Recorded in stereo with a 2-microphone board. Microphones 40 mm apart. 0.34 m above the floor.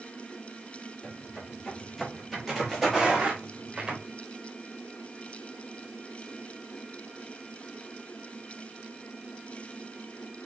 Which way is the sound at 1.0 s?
10° left (ahead or behind).